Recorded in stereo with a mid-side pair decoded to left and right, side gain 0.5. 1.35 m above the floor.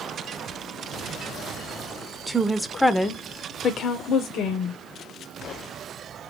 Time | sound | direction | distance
2.3 | a woman speaking | 20° right | 0.8 m